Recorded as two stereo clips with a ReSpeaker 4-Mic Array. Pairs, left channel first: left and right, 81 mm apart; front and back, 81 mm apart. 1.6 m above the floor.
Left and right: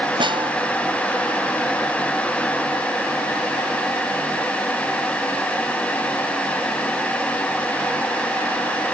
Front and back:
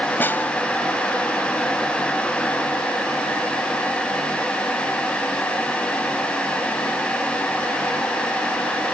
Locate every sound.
0.2 s a snare drum: 70° right